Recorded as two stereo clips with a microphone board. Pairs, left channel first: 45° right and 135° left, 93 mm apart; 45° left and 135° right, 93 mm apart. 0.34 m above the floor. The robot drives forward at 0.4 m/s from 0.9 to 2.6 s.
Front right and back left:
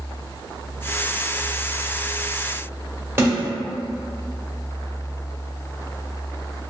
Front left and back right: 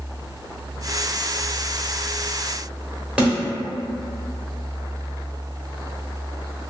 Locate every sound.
3.2 s a snare drum: 160° left, 1.1 m